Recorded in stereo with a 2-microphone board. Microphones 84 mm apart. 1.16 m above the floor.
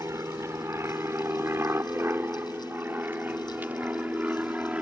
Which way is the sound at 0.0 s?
35° right (ahead or behind).